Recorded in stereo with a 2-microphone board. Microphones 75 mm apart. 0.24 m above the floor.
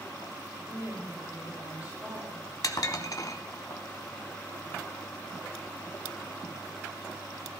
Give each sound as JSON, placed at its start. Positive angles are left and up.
{"t": 0.7, "sound": "a woman speaking", "side_deg": -35, "distance_m": 9.0}
{"t": 2.6, "sound": "dishes clattering", "side_deg": 50, "distance_m": 1.1}